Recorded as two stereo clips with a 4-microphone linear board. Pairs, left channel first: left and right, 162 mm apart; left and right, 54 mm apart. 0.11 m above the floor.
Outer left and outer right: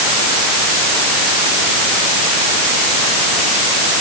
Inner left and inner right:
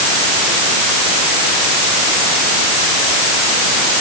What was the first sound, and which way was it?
Only background noise.